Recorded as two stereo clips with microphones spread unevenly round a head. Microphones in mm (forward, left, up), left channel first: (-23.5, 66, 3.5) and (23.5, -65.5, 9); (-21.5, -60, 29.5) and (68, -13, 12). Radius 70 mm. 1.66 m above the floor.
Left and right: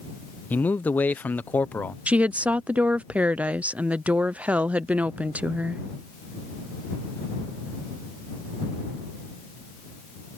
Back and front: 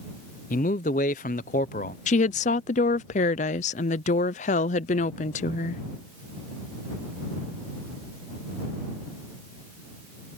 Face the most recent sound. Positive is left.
turn(degrees=-150)